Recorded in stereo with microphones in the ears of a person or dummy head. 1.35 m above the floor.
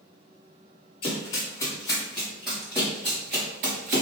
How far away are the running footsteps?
About 1.8 m.